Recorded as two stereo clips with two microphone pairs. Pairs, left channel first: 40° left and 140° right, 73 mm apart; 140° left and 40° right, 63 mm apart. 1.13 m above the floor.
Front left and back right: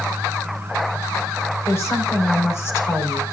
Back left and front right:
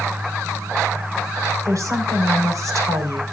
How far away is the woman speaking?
About 4.5 m.